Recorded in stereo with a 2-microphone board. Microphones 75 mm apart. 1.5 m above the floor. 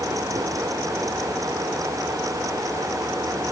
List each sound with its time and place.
Only background noise.